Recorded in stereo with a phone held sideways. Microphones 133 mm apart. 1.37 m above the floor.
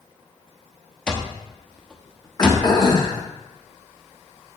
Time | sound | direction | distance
1.1 | an alarm clock | 5° left (ahead or behind) | 0.8 m
2.4 | throat clearing | 35° left (ahead or behind) | 1.2 m